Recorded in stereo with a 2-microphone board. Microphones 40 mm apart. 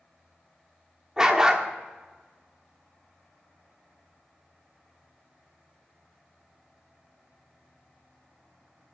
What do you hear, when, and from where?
1.2 s a dog barking: 15° right (ahead or behind), 1.0 m